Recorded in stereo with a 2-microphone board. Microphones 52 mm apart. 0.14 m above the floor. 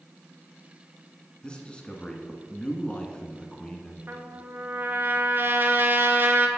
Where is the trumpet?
45° right (ahead or behind), 0.7 m.